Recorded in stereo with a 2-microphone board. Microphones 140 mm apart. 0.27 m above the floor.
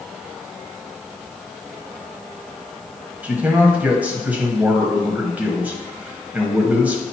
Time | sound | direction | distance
3.2 | a man speaking | 10° right (ahead or behind) | 1.1 m